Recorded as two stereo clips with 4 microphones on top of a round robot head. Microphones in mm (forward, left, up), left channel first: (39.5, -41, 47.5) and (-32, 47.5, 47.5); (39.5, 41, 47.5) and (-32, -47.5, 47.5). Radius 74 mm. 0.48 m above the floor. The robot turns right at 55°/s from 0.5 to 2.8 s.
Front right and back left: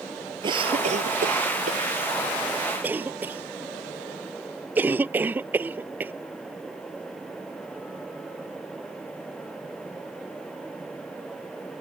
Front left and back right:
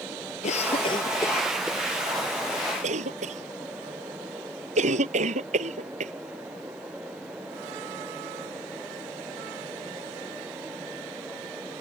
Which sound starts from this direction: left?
A cough, at 0.4 s.